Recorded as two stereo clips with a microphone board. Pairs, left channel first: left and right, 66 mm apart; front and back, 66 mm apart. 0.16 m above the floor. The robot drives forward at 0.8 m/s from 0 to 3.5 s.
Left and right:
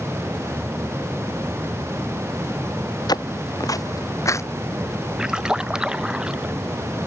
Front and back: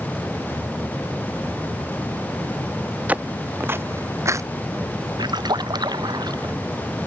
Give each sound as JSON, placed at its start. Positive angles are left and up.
{"t": 3.1, "sound": "footsteps", "azimuth_deg": 110}
{"t": 5.2, "sound": "a splash", "azimuth_deg": -170}